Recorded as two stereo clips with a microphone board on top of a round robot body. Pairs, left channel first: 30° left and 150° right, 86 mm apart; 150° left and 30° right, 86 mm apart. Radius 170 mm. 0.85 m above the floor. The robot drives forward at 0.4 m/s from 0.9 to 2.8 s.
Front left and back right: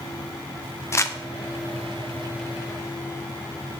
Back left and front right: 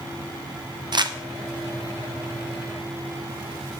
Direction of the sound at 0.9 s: 20° right.